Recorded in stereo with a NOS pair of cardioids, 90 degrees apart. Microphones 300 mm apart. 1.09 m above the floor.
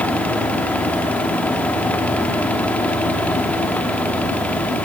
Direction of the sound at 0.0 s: 5° left.